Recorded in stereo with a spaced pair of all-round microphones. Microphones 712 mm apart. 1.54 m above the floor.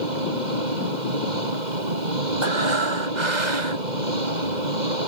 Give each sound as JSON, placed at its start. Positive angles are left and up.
{"t": 0.0, "sound": "an engine running", "side_deg": -85}
{"t": 2.4, "sound": "breathing", "side_deg": -80}